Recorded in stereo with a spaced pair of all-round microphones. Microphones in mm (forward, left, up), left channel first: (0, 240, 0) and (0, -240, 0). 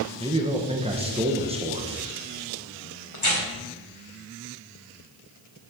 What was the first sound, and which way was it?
A man speaking, 10° right (ahead or behind).